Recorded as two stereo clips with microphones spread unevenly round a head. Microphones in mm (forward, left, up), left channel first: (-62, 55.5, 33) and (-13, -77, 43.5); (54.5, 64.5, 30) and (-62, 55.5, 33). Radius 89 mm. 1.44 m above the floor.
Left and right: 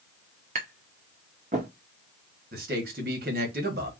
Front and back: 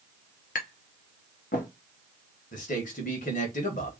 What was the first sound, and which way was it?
Tapping, 20° right.